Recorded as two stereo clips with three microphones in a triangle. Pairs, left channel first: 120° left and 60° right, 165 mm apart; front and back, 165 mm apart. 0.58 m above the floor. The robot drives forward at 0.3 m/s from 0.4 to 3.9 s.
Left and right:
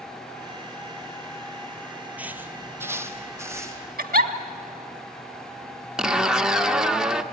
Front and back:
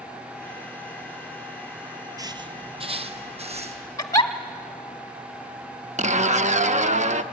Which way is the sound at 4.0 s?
65° right.